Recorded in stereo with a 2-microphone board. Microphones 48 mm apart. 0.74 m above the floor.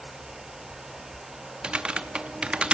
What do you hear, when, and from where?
1.6 s typing on a keyboard: 20° right (ahead or behind), 0.6 m